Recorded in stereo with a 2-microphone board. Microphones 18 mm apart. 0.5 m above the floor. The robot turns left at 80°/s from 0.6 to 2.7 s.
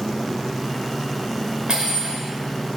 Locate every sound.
1.7 s cutlery clinking: 105° right, 1.2 m; by 2.2 s 145° right, 1.2 m